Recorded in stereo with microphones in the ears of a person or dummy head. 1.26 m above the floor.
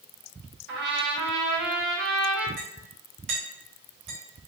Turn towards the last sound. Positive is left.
turn(degrees=-50)  # may be behind; listen again after turning